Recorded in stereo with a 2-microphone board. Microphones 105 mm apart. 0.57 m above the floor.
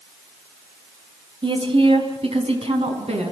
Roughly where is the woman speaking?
Right.